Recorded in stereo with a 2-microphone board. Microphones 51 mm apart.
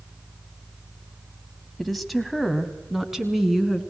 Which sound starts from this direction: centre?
A woman speaking, at 1.8 s.